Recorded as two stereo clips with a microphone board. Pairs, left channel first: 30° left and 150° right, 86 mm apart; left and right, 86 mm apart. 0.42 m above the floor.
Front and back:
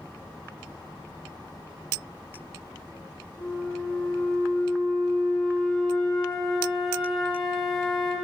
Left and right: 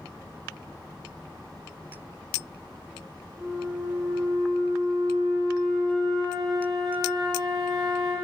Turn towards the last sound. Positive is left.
turn(degrees=-60)